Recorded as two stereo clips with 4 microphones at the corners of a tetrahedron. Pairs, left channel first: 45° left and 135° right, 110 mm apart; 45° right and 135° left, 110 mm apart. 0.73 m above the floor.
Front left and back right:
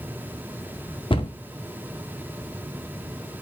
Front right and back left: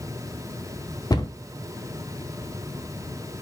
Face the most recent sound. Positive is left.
turn(degrees=10)